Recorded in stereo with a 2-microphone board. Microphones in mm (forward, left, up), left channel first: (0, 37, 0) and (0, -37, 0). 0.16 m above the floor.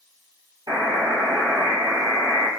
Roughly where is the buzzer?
Right.